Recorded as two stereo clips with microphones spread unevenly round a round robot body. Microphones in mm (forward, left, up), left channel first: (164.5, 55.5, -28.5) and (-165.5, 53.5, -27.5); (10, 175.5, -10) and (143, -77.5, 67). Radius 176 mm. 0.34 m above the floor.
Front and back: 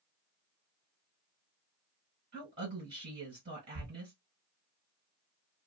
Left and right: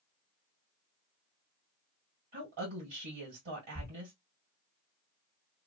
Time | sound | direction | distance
2.3 | a woman speaking | 110° right | 1.8 m
3.8 | a thud | 150° right | 0.9 m